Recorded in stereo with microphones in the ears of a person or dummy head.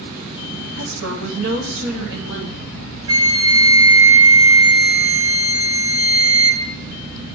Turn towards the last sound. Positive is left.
turn(degrees=-30)  # may be behind; listen again after turning